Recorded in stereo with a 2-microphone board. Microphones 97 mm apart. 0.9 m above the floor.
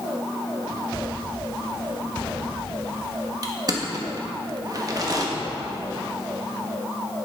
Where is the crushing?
40° right (ahead or behind), 1.1 m.